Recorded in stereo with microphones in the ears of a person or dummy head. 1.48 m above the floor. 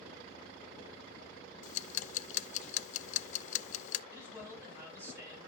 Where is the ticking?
45° left (ahead or behind), 0.5 m.